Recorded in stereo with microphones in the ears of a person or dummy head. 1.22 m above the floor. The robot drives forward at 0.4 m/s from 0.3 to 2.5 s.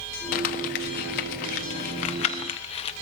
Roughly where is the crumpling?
Left.